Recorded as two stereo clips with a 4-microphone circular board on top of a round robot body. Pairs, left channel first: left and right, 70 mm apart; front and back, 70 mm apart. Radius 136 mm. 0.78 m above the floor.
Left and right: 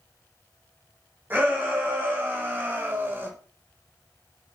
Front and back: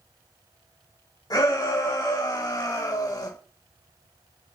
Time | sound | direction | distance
1.3 | a shout | 30° right | 7 m